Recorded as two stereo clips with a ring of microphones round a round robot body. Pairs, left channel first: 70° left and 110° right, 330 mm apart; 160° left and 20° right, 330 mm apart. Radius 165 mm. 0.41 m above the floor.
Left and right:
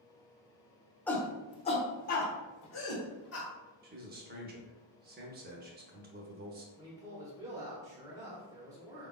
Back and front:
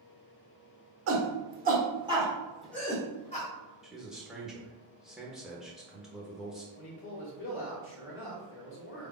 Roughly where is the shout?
Ahead.